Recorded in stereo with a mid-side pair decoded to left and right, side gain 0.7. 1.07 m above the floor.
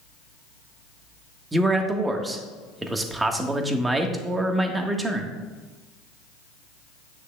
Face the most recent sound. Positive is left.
turn(degrees=-15)